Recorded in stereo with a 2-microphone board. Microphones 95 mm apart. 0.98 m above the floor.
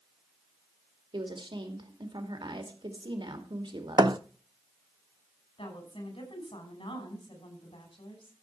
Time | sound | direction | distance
1.1 | a woman speaking | 55° right (ahead or behind) | 2.5 m
4.0 | a thud | 55° right (ahead or behind) | 0.7 m
5.6 | a woman speaking | 75° left (ahead or behind) | 5.5 m